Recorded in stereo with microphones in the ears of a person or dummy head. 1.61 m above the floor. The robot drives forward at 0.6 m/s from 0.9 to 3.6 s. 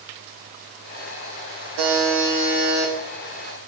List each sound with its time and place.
1.8 s a buzzer: 70° right (ahead or behind), 1.1 m; by 2.9 s 50° right (ahead or behind), 1.4 m